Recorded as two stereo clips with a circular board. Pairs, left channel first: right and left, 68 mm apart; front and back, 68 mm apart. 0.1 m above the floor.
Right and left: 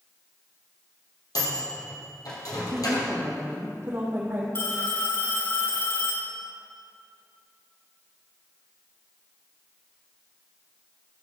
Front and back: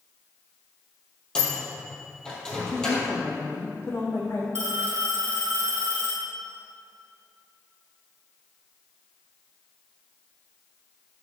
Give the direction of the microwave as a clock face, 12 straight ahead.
3 o'clock.